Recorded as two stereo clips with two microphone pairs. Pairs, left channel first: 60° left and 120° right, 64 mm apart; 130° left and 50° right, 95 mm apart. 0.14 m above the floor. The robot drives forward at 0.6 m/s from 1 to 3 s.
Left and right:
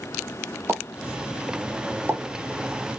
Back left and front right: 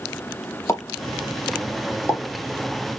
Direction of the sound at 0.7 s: 170° right.